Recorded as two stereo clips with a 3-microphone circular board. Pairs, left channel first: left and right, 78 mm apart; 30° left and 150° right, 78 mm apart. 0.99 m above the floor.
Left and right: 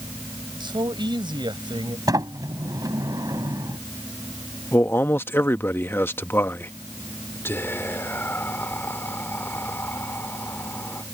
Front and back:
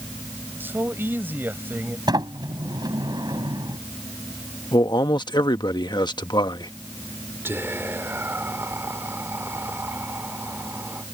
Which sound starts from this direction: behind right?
A sliding door, at 2.1 s.